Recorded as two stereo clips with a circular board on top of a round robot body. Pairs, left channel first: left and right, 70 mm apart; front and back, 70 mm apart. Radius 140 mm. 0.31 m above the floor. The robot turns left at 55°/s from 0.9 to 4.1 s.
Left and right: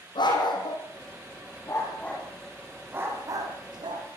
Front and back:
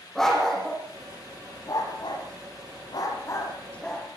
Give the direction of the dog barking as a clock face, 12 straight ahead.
9 o'clock.